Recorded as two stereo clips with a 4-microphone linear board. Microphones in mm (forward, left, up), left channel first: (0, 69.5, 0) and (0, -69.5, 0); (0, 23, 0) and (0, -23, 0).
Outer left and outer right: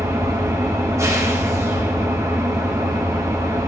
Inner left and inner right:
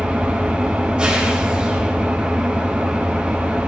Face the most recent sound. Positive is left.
turn(degrees=-20)  # may be behind; listen again after turning